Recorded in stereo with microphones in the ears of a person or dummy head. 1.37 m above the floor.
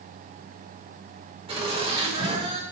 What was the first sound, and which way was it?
Laughter, 30° right (ahead or behind).